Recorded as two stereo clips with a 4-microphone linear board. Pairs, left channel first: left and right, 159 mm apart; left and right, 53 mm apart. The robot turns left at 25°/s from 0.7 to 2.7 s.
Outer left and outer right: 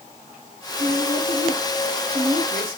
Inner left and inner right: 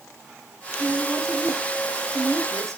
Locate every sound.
0.8 s a woman speaking: 70° right, 3.5 m; by 2.8 s 115° right, 3.5 m